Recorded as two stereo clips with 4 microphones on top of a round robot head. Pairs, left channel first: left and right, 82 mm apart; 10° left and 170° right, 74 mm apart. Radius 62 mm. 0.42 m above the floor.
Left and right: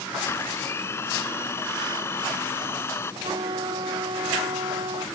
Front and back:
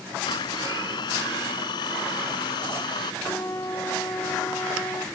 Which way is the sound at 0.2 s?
30° left.